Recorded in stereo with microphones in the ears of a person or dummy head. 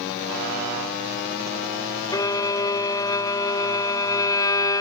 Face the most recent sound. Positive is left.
turn(degrees=20)  # may be behind; listen again after turning